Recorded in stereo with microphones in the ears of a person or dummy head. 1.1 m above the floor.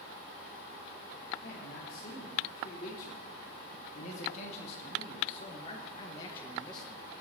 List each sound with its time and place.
1.4 s a man speaking: 65° left (ahead or behind), 3.5 m; by 7.0 s 15° left (ahead or behind), 1.1 m